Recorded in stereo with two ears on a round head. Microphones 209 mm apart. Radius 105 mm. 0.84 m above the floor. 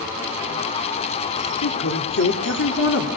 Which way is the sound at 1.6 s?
55° left (ahead or behind).